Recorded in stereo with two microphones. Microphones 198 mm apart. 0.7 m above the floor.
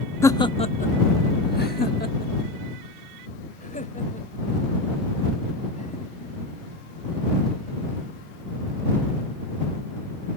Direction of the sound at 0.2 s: 15° left (ahead or behind).